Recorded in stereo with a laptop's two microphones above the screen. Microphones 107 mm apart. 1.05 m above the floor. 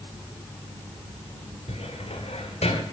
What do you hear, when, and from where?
1.7 s a cupboard door: 80° left, 2.0 m